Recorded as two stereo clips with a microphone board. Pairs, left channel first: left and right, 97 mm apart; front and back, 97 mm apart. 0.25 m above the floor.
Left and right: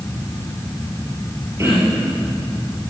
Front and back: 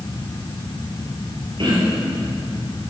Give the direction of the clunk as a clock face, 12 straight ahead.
I don't hear a clunk.